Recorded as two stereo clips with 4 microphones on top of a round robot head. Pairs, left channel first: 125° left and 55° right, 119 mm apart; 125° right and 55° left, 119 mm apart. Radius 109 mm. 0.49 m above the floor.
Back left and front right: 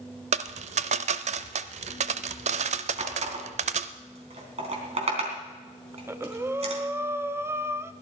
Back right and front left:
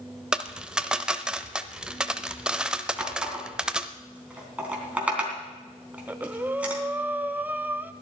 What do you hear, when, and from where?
0.3 s a dropped coin: 25° right, 0.6 m
3.0 s a running tap: 20° right, 3.5 m
5.9 s breathing: 5° right, 0.9 m